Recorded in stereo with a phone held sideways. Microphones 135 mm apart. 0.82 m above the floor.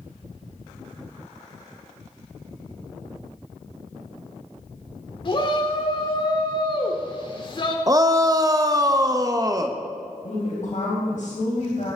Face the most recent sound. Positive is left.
turn(degrees=60)  # may be behind; listen again after turning